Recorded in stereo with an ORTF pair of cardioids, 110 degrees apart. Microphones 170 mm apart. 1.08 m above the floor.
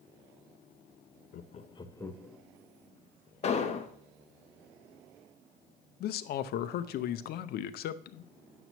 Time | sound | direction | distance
1.3 | laughter | 60° left | 0.6 m
3.4 | an explosion | 40° left | 0.9 m
6.0 | a man speaking | 65° left | 0.6 m